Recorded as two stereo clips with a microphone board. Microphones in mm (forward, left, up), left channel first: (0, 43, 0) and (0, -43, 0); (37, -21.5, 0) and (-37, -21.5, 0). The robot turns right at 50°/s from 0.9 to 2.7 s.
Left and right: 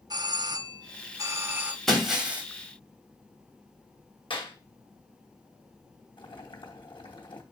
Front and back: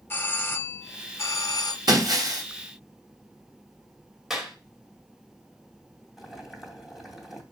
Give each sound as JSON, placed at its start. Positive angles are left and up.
{"t": 0.1, "sound": "a doorbell", "azimuth_deg": -55, "distance_m": 0.7}
{"t": 1.9, "sound": "breaking glass", "azimuth_deg": 175, "distance_m": 2.5}
{"t": 4.3, "sound": "a clap", "azimuth_deg": 95, "distance_m": 2.5}
{"t": 6.2, "sound": "boiling", "azimuth_deg": 95, "distance_m": 2.5}